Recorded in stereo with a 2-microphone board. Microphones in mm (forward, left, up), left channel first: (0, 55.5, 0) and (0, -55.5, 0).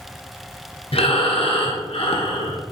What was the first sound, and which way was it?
Breathing, 60° left (ahead or behind).